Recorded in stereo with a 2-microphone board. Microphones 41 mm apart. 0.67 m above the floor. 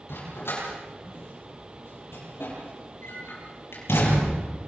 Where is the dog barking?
70° left (ahead or behind), 9.5 m; by 4.4 s 90° left, 7 m.